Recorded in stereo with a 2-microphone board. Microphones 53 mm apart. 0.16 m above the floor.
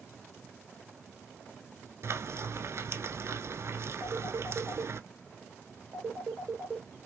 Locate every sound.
2.0 s frying: 60° right (ahead or behind), 0.9 m
4.0 s a phone ringing: 45° right (ahead or behind), 2 m